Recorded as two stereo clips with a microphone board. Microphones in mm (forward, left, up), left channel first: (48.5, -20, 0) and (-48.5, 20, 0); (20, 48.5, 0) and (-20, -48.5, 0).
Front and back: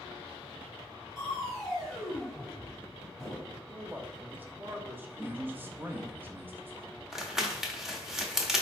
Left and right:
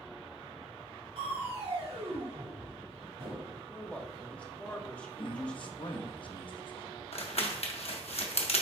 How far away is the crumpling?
About 0.9 m.